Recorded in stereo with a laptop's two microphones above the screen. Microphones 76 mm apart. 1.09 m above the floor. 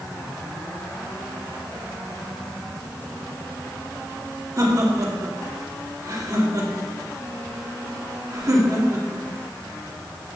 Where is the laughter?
45° right (ahead or behind), 2 m.